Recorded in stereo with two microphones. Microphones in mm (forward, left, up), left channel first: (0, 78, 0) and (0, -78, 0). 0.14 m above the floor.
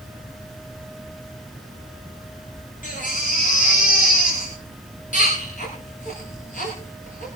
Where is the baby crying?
55° left (ahead or behind), 10 m.